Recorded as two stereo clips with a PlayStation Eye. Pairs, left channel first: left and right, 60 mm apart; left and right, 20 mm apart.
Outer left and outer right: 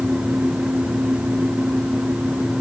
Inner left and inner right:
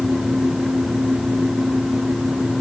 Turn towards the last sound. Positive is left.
No sound to turn to.